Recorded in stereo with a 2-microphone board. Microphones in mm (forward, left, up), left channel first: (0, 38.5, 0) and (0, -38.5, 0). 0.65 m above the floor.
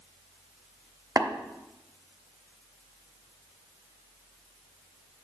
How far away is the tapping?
About 0.9 m.